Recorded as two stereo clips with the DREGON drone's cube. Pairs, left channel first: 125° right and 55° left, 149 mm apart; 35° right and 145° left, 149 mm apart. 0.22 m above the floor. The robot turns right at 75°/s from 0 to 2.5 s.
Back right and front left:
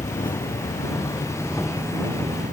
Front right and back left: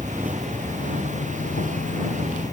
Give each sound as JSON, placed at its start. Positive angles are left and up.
{"t": 0.0, "sound": "an insect", "azimuth_deg": -155}